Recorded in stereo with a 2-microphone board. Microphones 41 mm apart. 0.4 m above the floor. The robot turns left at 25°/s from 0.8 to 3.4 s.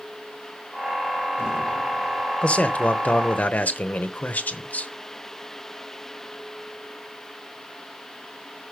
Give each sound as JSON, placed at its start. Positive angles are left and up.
{"t": 2.4, "sound": "a man speaking", "side_deg": 30, "distance_m": 1.0}